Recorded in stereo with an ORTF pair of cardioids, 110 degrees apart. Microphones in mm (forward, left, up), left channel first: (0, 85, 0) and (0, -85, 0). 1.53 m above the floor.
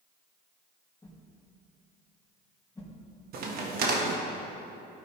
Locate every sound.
1.0 s a whoosh: 20° left, 1.8 m
3.3 s a crack: 65° right, 1.4 m